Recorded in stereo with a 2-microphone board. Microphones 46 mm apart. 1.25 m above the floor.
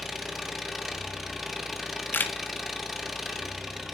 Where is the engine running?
Centre (ahead or behind), 0.8 m.